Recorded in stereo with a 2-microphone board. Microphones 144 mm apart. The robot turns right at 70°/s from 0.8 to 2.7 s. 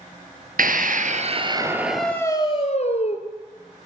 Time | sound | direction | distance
0.6 | a scream | 80° right | 3.5 m